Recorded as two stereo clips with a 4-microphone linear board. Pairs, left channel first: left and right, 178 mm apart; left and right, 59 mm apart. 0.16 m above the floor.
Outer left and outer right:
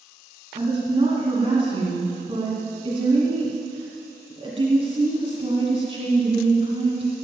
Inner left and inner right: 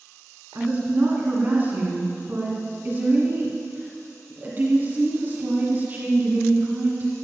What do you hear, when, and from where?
0.6 s a woman speaking: 35° right (ahead or behind), 2.0 m